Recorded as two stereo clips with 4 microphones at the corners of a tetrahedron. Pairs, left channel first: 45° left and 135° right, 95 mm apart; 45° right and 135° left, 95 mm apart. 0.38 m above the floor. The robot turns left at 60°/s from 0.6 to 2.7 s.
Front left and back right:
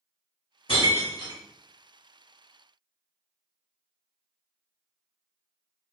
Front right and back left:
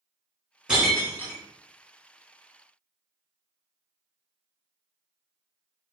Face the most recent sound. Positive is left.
turn(degrees=-65)